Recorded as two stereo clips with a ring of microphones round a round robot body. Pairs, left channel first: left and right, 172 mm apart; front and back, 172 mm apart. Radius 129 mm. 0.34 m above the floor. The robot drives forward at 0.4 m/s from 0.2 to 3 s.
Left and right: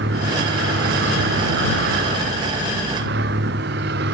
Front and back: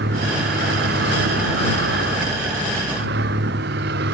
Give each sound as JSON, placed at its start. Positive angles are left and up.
{"t": 0.0, "sound": "a vehicle", "azimuth_deg": -135}